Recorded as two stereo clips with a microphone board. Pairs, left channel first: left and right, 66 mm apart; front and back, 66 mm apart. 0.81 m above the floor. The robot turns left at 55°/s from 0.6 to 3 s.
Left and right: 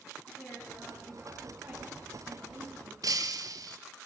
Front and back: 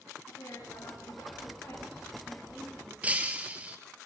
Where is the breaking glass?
110° right, 2 m.